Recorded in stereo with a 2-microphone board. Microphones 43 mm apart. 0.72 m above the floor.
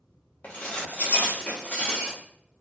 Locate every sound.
0.4 s dishes clattering: 35° left (ahead or behind), 0.7 m